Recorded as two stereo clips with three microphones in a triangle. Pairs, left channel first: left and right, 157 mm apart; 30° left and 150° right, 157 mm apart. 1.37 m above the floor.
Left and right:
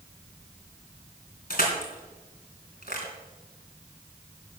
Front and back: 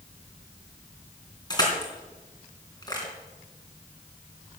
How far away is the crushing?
About 3.5 m.